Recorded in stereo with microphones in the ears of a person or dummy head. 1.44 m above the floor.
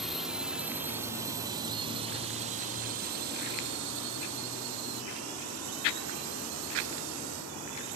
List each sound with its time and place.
0.0 s a drone: 5° left (ahead or behind); by 8.0 s 75° right (ahead or behind)